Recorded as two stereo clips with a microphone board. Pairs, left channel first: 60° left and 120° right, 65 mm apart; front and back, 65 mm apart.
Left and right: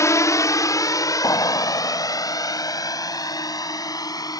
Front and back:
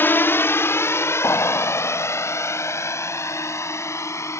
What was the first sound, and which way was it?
A drone, 50° left.